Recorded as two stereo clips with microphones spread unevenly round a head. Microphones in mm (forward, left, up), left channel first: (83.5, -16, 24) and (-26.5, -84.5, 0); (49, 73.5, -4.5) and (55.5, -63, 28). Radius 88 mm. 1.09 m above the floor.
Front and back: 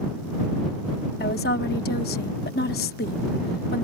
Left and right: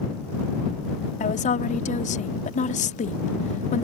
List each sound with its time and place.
1.2 s a woman speaking: 65° left